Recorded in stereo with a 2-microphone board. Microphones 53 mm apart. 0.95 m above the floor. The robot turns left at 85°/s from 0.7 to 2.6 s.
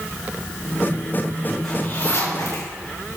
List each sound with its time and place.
1.6 s a zipper: 10° left (ahead or behind), 5 m; by 2.7 s 85° left, 5 m